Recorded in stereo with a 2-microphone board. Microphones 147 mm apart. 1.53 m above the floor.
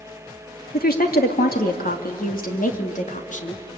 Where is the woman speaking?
85° left, 2.5 m; by 3.6 s 55° left (ahead or behind), 3 m.